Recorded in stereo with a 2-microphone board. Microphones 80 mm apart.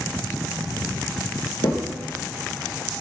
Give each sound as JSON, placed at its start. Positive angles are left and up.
{"t": 1.6, "sound": "a crack", "side_deg": 70, "distance_m": 3.0}